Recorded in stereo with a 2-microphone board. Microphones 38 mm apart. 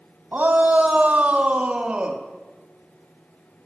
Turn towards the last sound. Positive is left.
turn(degrees=-25)  # may be behind; listen again after turning